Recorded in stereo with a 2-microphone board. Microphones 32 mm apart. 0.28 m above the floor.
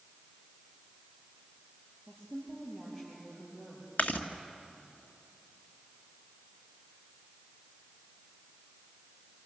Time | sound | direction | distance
2.1 | a woman speaking | 15° left (ahead or behind) | 7.5 m
4.0 | chewing | 55° left (ahead or behind) | 1.8 m